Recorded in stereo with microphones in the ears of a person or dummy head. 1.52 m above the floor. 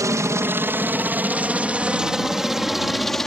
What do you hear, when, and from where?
0.0 s a helicopter: 15° right (ahead or behind); by 3.3 s 5° left (ahead or behind)